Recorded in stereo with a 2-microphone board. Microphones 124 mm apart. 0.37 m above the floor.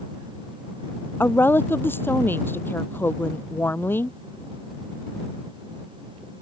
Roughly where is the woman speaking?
Centre.